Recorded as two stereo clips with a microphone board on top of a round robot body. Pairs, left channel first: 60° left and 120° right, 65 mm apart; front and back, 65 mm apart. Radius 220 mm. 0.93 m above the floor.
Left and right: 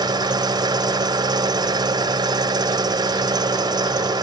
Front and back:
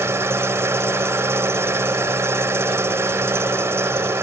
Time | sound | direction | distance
0.0 | an engine running | 130° right | ?